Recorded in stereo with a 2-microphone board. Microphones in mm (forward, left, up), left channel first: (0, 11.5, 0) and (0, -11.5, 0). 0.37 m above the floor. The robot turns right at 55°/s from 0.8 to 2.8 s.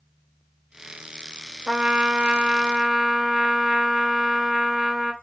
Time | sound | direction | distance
1.7 | a trumpet | 25° right (ahead or behind) | 0.8 m